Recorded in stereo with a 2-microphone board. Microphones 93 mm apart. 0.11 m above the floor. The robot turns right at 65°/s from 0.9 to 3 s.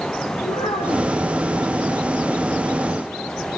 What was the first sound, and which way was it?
A child speaking, 65° left (ahead or behind).